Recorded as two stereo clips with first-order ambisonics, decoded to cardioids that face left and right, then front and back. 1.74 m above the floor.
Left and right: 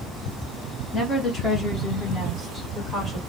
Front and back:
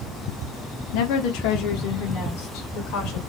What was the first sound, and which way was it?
A woman speaking, 15° left.